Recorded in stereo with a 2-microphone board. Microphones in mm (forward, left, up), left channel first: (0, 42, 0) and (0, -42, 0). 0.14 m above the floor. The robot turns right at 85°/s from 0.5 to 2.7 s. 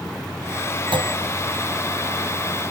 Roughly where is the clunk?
Right.